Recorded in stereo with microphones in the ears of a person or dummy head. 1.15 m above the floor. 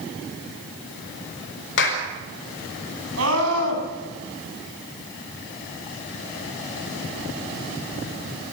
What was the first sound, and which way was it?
A clap, 70° left (ahead or behind).